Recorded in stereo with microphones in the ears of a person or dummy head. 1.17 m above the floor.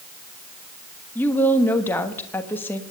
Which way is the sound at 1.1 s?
10° left (ahead or behind).